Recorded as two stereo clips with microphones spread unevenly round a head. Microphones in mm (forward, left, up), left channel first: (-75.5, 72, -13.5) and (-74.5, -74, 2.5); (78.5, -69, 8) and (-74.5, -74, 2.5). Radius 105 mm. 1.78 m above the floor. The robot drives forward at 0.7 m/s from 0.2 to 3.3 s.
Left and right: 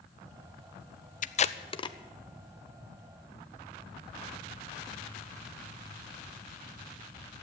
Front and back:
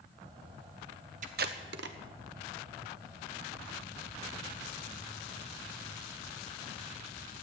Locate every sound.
1.2 s tape being pulled: 125° left, 0.5 m; by 2.0 s 155° left, 0.9 m